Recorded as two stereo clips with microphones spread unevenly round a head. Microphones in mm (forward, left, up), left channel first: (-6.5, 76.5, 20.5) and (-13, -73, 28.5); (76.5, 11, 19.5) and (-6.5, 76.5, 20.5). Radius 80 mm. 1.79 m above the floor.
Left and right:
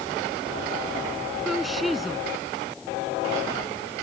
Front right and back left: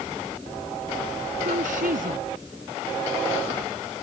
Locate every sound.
1.4 s a woman speaking: 175° left